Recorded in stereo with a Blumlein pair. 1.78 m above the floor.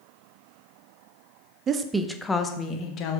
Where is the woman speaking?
25° right, 0.7 m; by 3.2 s 35° left, 1.3 m.